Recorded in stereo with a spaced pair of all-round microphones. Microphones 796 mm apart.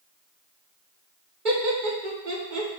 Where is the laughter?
75° right (ahead or behind), 1.6 m.